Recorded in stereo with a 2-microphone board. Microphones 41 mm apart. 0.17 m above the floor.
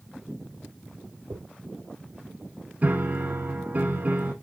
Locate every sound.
1.3 s a dropped coin: 85° right, 3.5 m
2.8 s a piano: 35° right (ahead or behind), 1.3 m